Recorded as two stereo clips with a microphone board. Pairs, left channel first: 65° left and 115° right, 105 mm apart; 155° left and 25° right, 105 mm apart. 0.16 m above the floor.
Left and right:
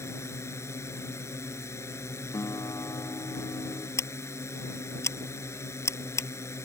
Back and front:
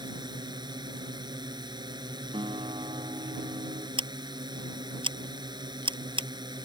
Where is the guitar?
10° left.